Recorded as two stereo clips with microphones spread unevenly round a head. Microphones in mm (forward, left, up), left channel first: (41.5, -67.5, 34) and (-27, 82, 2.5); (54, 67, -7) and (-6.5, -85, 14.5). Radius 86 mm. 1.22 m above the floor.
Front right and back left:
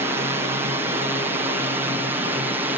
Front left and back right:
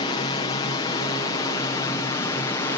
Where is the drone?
80° left; by 2.8 s 100° left.